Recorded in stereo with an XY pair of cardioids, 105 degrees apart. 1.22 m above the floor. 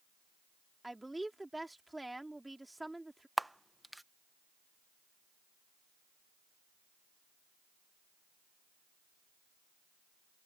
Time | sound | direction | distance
0.8 | a woman speaking | 10° right | ?
3.4 | a camera shutter | 5° right | ?